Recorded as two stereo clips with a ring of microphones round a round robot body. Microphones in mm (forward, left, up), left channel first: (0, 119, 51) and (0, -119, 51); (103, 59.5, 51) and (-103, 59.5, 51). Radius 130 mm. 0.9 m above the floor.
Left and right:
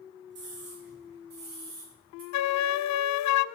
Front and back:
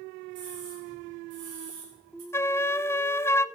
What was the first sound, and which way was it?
A scream, 135° right.